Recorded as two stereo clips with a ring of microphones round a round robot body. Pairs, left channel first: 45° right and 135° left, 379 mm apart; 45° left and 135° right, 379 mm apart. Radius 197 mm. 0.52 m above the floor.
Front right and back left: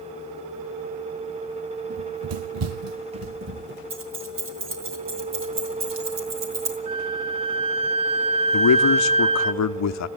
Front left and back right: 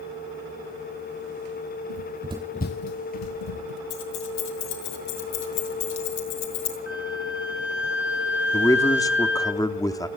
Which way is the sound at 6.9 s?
140° left.